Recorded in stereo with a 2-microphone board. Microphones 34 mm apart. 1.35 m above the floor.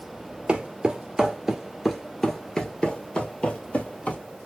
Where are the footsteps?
30° right (ahead or behind), 1.6 m; by 4.2 s 45° left (ahead or behind), 2 m.